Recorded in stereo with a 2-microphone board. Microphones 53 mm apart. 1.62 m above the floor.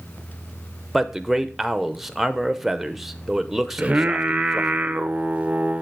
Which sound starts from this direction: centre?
A man speaking, at 0.9 s.